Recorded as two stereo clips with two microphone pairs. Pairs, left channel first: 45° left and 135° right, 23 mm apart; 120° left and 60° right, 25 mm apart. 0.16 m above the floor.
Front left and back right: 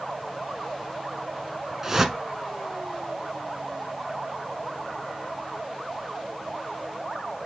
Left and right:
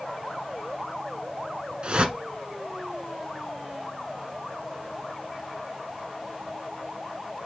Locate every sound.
1.8 s a whoosh: 75° right, 1.4 m